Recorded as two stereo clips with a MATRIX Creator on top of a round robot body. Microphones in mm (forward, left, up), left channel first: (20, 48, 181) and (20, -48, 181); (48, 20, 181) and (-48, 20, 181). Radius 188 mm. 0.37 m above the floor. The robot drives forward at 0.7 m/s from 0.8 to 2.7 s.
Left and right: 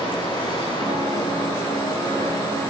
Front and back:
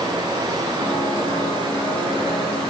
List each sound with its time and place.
0.0 s running water: 135° left, 4.5 m; by 2.7 s 145° left, 5.5 m